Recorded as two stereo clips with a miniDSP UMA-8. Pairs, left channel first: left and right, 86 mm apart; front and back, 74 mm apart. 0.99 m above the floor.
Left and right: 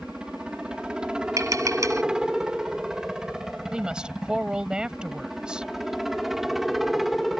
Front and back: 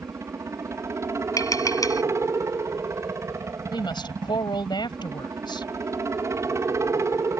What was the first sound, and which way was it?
A helicopter, 165° right.